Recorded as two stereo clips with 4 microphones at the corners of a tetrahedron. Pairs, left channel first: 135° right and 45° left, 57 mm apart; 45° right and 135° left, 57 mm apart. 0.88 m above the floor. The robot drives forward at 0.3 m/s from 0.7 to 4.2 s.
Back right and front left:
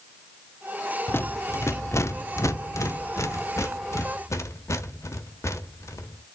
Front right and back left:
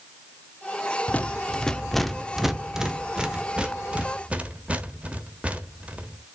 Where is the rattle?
100° right, 0.5 m; by 6.2 s 155° right, 1.1 m.